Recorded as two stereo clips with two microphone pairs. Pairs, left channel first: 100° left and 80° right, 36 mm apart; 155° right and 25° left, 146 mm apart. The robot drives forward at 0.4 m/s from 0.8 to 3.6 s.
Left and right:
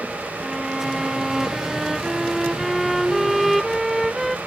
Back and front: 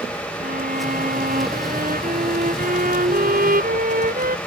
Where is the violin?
10° left.